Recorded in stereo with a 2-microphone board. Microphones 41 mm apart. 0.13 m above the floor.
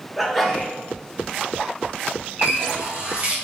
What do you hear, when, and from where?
0.2 s a sneeze: centre (ahead or behind), 1.2 m
2.4 s a running tap: 40° right (ahead or behind), 1.6 m